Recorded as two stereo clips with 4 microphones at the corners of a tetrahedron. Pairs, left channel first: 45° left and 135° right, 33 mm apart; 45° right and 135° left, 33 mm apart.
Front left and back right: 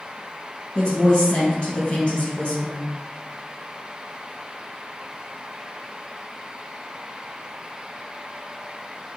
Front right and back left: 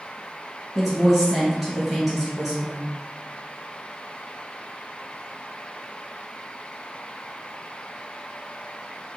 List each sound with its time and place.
0.8 s a woman speaking: 65° left, 1.3 m